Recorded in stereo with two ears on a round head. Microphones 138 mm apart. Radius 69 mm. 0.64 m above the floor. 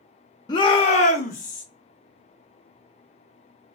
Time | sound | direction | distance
0.5 | a shout | 25° left (ahead or behind) | 0.7 m